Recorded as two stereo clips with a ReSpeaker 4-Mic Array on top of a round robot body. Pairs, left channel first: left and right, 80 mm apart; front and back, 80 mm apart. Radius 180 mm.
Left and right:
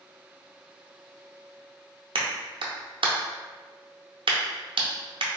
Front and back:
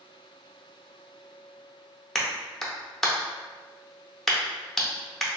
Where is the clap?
90° right, 0.6 m.